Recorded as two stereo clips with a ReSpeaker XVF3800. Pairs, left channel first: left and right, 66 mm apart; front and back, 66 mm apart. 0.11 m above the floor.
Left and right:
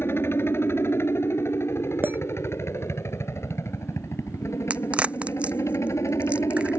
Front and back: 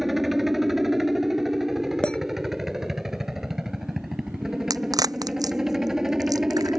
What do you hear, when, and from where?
0.0 s a helicopter: 95° left; by 6.8 s 100° left
2.0 s a clink: 65° right
4.7 s a crack: 160° right